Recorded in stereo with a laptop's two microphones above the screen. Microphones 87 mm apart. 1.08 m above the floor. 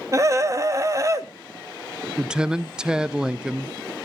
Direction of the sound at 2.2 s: 10° right (ahead or behind).